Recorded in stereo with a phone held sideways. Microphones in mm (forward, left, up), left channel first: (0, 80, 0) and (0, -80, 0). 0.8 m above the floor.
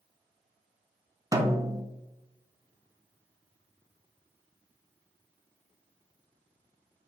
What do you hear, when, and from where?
1.3 s a snare drum: 20° right (ahead or behind), 0.6 m